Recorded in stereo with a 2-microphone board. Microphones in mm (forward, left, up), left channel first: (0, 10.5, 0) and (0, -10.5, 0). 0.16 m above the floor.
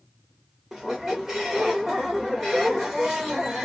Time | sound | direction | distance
0.7 | a squeak | 20° right (ahead or behind) | 1.0 m